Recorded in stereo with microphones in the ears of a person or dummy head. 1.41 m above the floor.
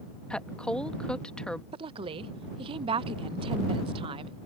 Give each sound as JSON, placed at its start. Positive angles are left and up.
{"t": 0.3, "sound": "a woman speaking", "side_deg": 5}
{"t": 1.7, "sound": "a woman speaking", "side_deg": -30}